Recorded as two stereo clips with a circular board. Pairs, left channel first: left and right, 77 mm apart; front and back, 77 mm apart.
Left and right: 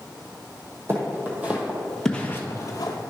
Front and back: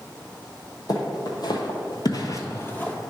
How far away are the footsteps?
About 1.8 m.